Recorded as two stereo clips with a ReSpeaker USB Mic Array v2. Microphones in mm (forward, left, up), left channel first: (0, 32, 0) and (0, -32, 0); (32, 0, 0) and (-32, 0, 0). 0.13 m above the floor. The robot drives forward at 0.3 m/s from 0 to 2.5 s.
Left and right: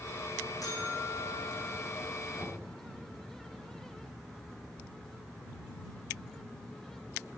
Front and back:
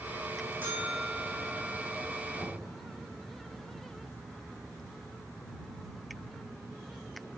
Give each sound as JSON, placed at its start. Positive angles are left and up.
{"t": 0.6, "sound": "a buzzer", "azimuth_deg": 115, "distance_m": 4.0}
{"t": 2.4, "sound": "knocking", "azimuth_deg": 100, "distance_m": 2.5}